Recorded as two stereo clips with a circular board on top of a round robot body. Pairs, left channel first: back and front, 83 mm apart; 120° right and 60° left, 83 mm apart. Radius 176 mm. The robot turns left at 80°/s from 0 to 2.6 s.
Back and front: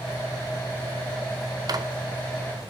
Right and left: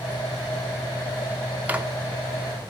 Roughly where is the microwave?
Ahead.